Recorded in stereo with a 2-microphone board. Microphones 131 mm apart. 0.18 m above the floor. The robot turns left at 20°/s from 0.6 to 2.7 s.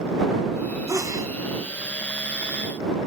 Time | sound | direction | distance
0.9 | a sneeze | 25° right (ahead or behind) | ?